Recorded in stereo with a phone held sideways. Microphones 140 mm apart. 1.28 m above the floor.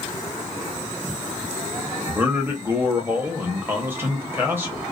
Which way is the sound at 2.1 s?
15° right (ahead or behind).